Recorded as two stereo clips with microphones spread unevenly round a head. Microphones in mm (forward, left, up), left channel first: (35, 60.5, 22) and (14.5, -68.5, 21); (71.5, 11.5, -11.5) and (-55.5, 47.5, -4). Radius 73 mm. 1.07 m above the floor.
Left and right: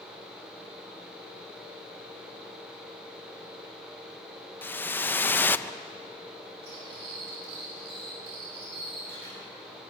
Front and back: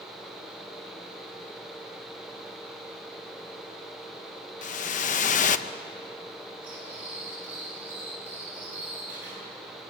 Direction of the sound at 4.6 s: 5° left.